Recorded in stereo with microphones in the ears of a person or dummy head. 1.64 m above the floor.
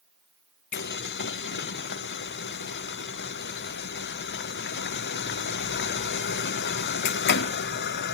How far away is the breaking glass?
I don't hear breaking glass.